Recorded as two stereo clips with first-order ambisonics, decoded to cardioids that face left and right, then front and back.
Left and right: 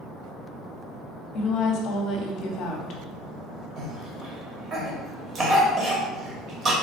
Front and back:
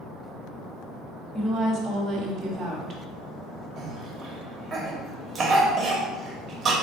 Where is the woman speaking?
110° left, 0.8 m.